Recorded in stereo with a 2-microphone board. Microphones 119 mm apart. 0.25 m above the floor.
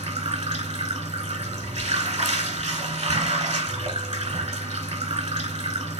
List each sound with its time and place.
0.0 s running water: 70° right (ahead or behind), 1.4 m